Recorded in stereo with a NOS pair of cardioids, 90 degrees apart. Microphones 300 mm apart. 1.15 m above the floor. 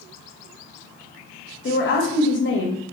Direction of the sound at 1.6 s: 40° left.